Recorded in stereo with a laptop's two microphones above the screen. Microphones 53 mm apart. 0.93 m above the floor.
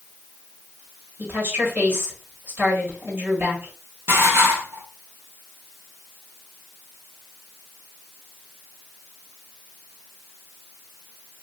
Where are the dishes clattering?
50° right (ahead or behind), 1.3 m.